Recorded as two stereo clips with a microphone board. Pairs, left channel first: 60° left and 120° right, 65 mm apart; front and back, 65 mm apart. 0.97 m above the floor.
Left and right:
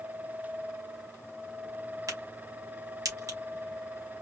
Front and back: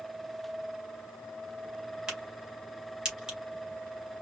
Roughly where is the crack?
Right.